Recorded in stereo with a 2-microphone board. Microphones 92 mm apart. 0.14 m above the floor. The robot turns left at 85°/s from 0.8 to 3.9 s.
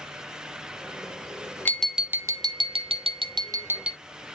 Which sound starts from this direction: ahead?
Tapping, at 1.6 s.